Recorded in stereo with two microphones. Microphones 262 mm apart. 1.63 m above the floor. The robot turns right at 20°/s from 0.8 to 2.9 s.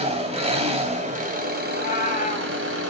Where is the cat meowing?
40° left (ahead or behind), 3.5 m; by 2.5 s 25° left (ahead or behind), 3.5 m.